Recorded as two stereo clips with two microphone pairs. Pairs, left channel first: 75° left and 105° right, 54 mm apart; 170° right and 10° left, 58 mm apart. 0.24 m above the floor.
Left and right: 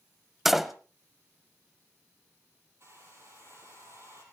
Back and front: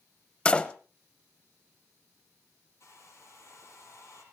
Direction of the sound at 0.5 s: Straight behind.